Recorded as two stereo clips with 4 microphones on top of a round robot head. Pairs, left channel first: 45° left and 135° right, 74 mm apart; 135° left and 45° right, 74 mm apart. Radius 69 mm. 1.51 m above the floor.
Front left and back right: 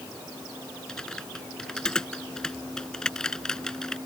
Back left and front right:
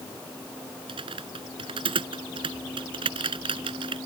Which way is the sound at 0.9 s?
35° right.